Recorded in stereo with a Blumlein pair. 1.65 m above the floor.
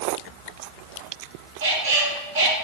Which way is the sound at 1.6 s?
60° right.